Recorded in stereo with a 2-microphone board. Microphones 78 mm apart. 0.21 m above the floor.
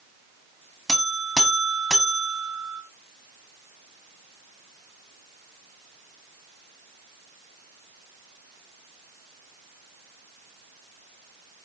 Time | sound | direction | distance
0.9 | a buzzer | centre (ahead or behind) | 1.1 m